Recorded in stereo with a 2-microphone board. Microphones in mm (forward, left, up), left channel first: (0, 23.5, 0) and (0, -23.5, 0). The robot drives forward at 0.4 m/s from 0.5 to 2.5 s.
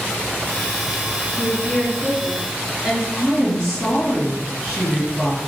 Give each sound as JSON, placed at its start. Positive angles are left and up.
{"t": 1.4, "sound": "a woman speaking", "side_deg": 10, "distance_m": 1.4}
{"t": 3.1, "sound": "a woman speaking", "side_deg": 15, "distance_m": 1.9}